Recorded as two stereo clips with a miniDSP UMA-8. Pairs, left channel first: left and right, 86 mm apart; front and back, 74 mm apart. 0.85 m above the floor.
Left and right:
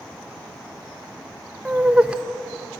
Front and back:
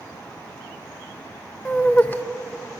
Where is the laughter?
30° right, 0.6 m.